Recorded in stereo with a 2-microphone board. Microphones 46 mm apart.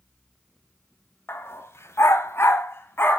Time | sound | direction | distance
1.3 | a dog barking | 60° left (ahead or behind) | 0.8 m